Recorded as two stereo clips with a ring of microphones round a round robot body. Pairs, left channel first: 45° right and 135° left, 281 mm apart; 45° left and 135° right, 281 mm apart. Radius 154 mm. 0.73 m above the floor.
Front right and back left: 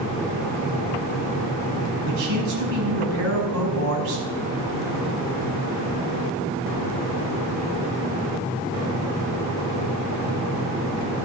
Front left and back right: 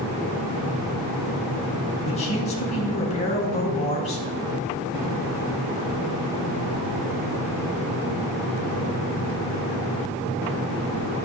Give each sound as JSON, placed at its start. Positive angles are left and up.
{"t": 2.0, "sound": "a man speaking", "azimuth_deg": 110, "distance_m": 5.0}